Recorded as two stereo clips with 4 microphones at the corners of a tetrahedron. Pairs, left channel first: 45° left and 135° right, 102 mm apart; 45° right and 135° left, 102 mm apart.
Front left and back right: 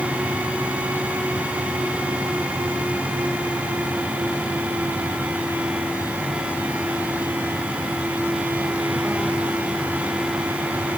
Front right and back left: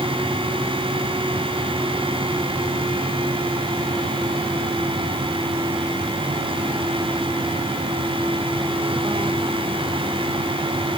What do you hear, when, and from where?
Only background noise.